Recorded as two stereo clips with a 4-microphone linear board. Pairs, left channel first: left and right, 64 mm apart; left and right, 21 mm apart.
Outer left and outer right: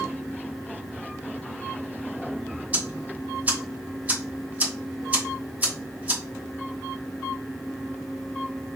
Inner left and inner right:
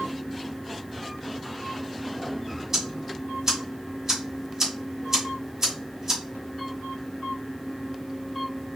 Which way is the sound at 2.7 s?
25° right (ahead or behind).